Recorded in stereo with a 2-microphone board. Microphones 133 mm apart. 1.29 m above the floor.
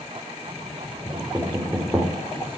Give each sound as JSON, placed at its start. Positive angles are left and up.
{"t": 1.1, "sound": "knocking", "side_deg": -15, "distance_m": 4.0}